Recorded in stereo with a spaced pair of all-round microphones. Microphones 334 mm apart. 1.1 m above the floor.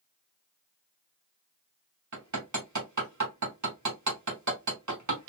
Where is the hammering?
60° right (ahead or behind), 1.2 m.